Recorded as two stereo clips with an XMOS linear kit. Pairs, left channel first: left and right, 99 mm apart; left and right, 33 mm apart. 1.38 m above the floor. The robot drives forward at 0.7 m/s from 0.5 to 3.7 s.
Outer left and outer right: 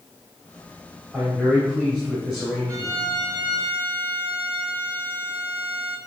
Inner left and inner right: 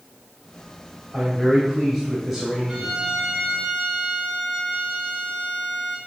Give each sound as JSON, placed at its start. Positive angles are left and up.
{"t": 1.1, "sound": "a man speaking", "side_deg": -20, "distance_m": 3.5}
{"t": 2.7, "sound": "a violin", "side_deg": -35, "distance_m": 1.9}